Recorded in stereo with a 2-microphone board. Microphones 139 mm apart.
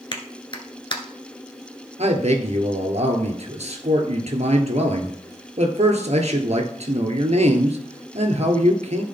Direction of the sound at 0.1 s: 35° left (ahead or behind).